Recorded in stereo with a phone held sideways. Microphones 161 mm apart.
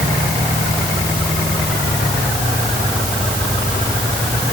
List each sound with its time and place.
Only background noise.